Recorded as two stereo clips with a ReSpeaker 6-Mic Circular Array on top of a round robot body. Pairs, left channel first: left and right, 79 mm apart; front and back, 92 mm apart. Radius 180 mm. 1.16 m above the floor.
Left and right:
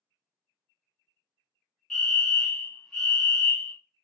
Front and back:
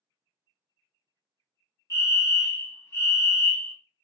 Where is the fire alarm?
15° left, 1.2 m.